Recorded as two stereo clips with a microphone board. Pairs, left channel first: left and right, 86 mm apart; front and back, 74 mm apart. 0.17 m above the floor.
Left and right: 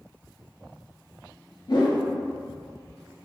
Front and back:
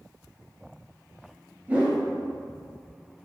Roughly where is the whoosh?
Behind left.